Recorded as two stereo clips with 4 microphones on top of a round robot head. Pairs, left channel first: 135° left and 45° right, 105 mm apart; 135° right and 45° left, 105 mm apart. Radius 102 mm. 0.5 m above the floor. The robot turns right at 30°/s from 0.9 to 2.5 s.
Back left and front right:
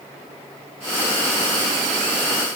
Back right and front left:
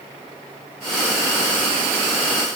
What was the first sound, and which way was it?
Only background noise.